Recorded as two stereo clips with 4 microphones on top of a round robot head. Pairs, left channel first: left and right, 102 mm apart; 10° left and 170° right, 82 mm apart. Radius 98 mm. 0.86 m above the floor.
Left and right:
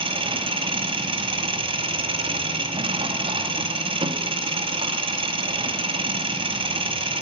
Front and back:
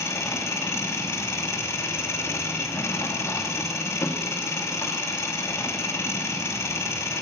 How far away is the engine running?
About 1.1 m.